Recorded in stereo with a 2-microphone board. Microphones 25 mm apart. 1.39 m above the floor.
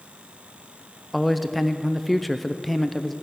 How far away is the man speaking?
About 0.6 m.